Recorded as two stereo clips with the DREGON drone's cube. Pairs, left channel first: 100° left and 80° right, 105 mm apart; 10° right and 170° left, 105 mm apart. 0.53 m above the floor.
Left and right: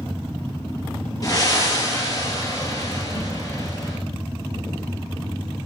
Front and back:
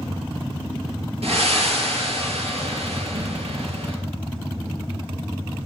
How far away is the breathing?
About 4 m.